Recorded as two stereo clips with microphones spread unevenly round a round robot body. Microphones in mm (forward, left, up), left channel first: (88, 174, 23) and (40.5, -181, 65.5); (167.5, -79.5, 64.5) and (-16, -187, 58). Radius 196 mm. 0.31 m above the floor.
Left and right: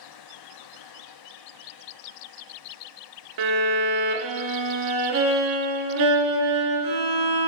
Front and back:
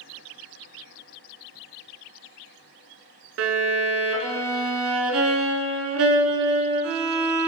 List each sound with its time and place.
3.4 s a violin: 140° right, 0.8 m